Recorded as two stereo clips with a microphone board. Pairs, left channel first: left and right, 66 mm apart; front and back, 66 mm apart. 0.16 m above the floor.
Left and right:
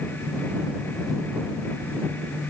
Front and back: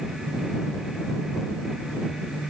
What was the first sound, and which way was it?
Only background noise.